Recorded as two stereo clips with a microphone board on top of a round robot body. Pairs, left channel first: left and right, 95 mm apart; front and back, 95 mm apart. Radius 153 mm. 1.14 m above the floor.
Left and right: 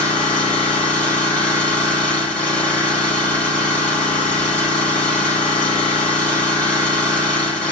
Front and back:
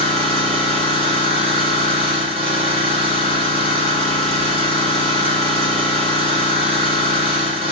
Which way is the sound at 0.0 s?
165° left.